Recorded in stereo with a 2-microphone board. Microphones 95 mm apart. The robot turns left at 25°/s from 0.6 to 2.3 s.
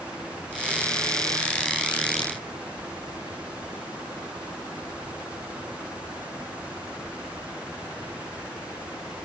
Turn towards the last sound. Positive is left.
No sound to turn to.